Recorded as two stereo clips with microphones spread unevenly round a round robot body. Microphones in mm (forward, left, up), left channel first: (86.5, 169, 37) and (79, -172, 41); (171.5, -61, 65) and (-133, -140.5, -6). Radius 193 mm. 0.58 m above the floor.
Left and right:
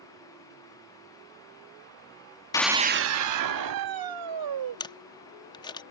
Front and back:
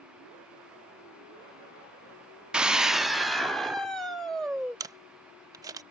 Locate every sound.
2.5 s a scream: 150° left; by 4.8 s 75° right
4.8 s a camera shutter: 155° left